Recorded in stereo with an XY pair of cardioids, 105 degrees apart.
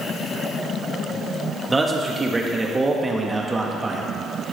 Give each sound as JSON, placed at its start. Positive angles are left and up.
{"t": 1.7, "sound": "a man speaking", "azimuth_deg": -20, "distance_m": 1.3}